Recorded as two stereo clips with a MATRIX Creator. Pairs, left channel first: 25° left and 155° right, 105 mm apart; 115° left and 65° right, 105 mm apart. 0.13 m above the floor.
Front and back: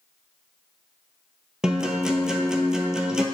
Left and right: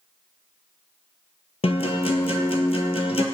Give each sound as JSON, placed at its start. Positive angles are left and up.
{"t": 1.6, "sound": "a guitar", "azimuth_deg": 120, "distance_m": 0.7}